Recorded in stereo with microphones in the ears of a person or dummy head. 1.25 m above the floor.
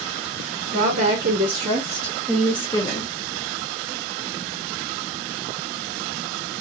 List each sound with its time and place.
0.7 s a woman speaking: 55° right (ahead or behind), 1.8 m; by 3.1 s 30° left (ahead or behind), 1.0 m